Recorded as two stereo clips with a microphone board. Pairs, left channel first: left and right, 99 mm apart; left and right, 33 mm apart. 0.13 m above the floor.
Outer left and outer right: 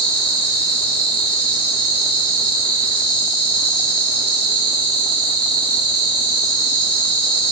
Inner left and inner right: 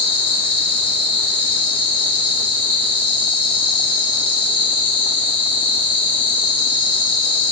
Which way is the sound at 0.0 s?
55° left (ahead or behind).